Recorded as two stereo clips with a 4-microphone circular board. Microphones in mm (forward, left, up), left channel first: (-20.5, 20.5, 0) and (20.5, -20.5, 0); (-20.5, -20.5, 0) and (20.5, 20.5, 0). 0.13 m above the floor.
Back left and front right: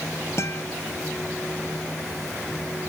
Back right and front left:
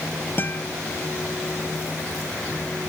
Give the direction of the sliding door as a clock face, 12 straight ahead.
No sliding door in this recording.